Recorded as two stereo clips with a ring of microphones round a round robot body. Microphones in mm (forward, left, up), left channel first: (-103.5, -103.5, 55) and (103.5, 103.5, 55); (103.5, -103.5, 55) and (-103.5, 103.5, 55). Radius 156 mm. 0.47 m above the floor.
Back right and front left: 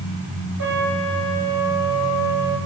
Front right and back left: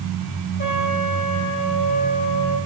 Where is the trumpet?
10° left, 5.5 m.